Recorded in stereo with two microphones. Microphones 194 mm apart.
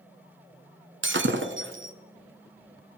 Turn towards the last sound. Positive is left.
turn(degrees=-80)